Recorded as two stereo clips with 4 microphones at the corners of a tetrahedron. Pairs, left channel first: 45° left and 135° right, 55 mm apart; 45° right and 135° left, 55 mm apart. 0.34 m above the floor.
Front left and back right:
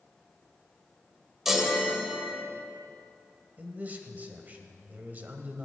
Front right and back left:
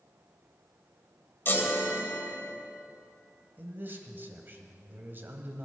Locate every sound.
1.4 s a chime: 55° right, 1.7 m
3.6 s a man speaking: 175° left, 1.4 m